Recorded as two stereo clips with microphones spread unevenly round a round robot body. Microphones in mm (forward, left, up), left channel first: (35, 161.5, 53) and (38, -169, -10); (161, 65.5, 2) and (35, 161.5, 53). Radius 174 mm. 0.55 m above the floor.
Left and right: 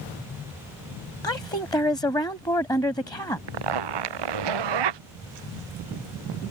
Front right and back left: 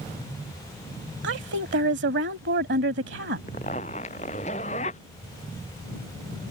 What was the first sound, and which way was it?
A woman speaking, 170° left.